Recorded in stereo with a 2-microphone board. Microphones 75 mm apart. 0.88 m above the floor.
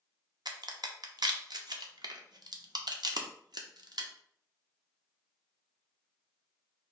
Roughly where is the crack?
Right.